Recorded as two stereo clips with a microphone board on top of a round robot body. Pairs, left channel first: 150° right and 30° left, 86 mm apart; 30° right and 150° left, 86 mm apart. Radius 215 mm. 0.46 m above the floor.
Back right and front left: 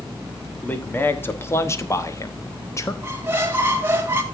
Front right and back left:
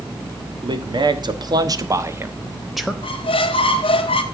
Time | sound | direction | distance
0.6 | a man speaking | 145° left | 2 m
3.0 | a squeak | 35° right | 0.8 m